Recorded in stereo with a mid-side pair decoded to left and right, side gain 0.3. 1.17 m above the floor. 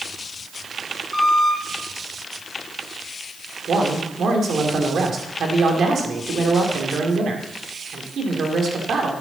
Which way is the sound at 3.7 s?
70° right.